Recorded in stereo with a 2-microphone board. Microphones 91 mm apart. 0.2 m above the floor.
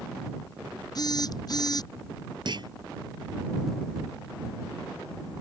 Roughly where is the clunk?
Right.